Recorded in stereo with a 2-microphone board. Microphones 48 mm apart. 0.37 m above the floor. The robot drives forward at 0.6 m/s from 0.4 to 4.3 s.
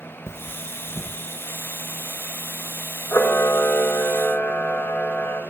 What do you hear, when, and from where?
0.3 s cutlery clinking: 55° left (ahead or behind), 1.0 m; by 1.2 s 45° left (ahead or behind), 1.2 m
3.1 s a camera shutter: 55° left (ahead or behind), 1.3 m; by 5.4 s 40° left (ahead or behind), 1.6 m